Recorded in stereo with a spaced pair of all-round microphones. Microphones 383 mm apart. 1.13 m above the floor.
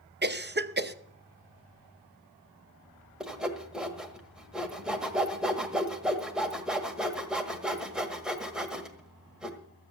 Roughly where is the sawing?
Centre.